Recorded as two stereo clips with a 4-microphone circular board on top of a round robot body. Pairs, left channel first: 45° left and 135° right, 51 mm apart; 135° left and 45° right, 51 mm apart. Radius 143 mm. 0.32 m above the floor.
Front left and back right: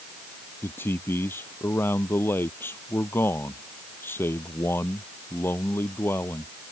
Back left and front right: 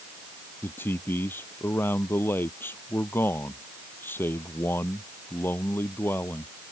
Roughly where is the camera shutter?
I don't hear a camera shutter.